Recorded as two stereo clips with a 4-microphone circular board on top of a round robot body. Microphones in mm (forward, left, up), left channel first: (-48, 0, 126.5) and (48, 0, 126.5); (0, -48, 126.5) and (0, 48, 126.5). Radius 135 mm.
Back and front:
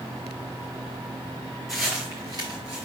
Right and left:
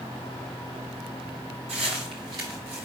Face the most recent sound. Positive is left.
turn(degrees=15)